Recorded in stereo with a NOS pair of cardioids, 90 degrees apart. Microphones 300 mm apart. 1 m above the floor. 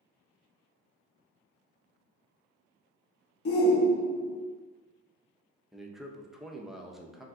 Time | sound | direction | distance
3.5 | a shout | 50° left | 0.9 m
5.7 | a man speaking | straight ahead | 0.5 m